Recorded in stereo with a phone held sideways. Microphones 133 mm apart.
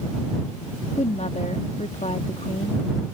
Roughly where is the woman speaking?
Left.